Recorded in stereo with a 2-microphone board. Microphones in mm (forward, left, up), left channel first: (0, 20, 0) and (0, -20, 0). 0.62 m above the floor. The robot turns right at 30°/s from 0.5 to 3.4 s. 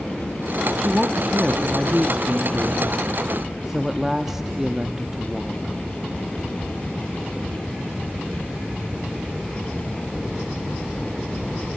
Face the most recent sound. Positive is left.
turn(degrees=-10)  # may be behind; listen again after turning